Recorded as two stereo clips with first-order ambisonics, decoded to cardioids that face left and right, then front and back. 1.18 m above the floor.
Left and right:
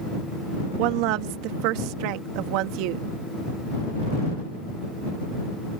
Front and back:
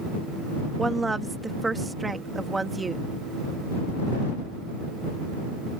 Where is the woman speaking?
100° right.